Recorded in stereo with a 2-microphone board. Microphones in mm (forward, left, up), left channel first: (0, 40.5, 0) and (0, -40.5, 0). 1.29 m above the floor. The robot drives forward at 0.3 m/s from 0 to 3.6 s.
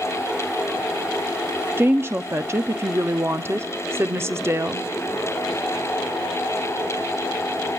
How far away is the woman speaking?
About 0.6 m.